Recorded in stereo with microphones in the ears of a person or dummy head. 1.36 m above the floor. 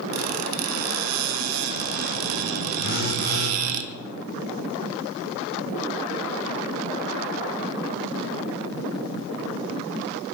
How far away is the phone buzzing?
About 1.3 m.